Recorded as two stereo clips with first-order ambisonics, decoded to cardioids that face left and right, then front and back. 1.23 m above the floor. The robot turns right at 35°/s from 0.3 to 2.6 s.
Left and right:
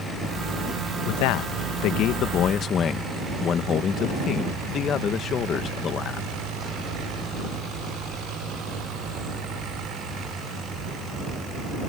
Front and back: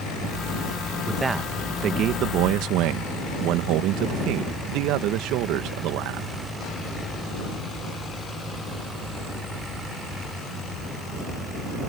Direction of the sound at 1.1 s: 95° left.